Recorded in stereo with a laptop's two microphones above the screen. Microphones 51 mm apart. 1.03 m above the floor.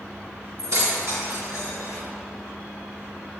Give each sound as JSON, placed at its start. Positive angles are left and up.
{"t": 0.6, "sound": "keys jangling", "side_deg": -85, "distance_m": 1.7}